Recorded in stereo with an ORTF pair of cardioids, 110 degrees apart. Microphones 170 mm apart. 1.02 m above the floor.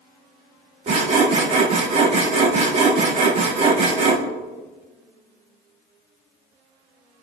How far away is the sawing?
About 1.9 m.